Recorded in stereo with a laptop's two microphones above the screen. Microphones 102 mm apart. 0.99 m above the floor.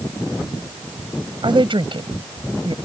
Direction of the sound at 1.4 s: 55° right (ahead or behind).